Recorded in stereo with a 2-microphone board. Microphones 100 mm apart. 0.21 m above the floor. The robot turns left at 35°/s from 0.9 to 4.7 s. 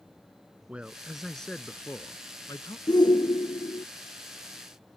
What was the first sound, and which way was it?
A man speaking, 170° right.